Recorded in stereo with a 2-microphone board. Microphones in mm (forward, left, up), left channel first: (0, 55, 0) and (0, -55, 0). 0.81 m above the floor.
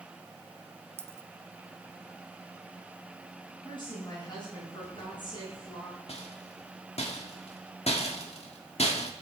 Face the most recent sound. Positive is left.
turn(degrees=70)  # may be behind; listen again after turning